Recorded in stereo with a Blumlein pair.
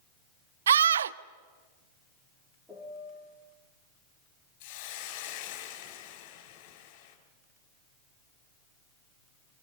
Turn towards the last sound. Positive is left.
turn(degrees=45)